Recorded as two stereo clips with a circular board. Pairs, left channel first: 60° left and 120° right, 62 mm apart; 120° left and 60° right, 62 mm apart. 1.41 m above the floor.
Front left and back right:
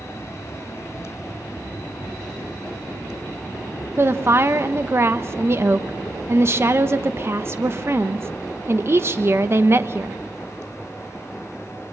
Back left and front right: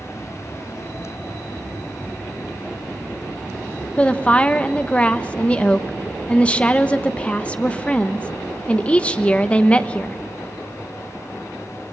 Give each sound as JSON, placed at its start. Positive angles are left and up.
{"t": 4.0, "sound": "a woman speaking", "azimuth_deg": -170, "distance_m": 1.0}